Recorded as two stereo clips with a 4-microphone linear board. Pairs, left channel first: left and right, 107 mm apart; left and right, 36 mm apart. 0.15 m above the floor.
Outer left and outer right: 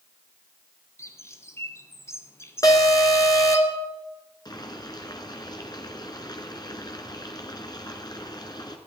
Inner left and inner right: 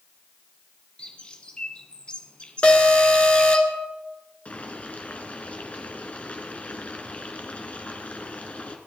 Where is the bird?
25° left (ahead or behind), 1.3 m.